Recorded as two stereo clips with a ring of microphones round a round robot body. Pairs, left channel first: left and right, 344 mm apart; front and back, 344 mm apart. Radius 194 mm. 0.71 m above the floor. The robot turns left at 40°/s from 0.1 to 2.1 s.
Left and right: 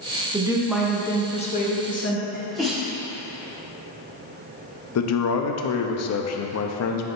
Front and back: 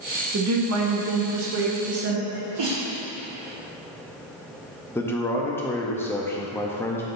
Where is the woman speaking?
160° right, 1.0 m; by 2.2 s 130° left, 1.0 m.